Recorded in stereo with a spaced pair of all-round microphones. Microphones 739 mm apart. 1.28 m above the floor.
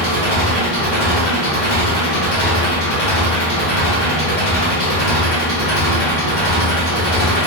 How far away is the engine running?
About 1.3 m.